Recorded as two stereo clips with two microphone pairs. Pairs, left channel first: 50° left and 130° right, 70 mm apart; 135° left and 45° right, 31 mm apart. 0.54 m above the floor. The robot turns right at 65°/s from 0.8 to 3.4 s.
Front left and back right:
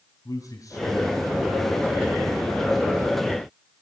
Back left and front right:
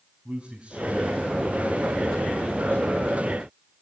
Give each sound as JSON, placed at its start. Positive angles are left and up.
{"t": 0.2, "sound": "a man speaking", "azimuth_deg": 20, "distance_m": 4.0}